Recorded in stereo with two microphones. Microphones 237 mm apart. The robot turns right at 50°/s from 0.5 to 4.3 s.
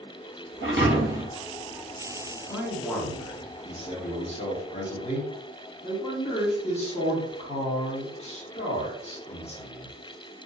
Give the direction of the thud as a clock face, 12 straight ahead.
2 o'clock.